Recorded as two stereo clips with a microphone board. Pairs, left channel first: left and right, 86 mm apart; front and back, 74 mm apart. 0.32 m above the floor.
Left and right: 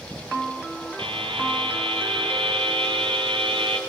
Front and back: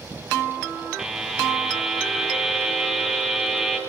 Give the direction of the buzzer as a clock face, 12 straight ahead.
3 o'clock.